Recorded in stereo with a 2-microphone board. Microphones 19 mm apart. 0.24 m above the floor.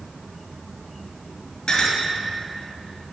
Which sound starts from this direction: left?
A clink, at 1.7 s.